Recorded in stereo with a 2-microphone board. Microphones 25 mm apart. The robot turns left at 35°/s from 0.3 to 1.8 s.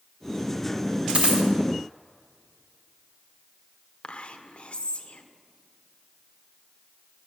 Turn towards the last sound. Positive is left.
turn(degrees=50)  # may be behind; listen again after turning